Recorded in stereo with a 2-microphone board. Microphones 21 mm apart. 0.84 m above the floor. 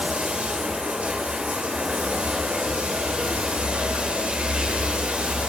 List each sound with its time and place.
0.0 s running water: 75° right (ahead or behind), 2 m